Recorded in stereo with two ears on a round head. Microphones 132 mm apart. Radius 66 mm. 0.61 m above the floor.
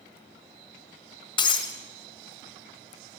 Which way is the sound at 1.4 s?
35° left (ahead or behind).